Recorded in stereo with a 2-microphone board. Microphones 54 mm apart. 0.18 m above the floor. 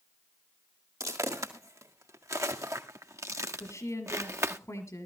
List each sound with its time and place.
1.0 s footsteps: 85° right, 2.5 m; by 4.6 s 50° right (ahead or behind), 0.9 m
3.6 s a woman speaking: 65° left (ahead or behind), 3.5 m